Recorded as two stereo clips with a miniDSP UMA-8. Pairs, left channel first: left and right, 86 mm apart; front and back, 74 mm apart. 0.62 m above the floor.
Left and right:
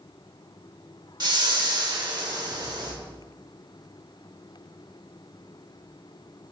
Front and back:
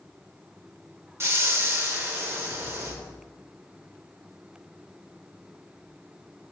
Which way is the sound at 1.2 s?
125° right.